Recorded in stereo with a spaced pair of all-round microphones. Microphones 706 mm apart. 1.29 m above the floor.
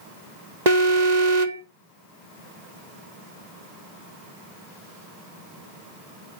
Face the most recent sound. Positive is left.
turn(degrees=-70)  # may be behind; listen again after turning